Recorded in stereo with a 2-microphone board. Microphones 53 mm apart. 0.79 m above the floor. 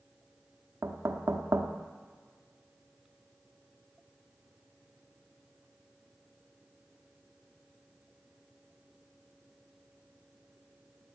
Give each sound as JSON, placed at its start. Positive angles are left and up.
{"t": 0.8, "sound": "knocking", "side_deg": -60, "distance_m": 0.9}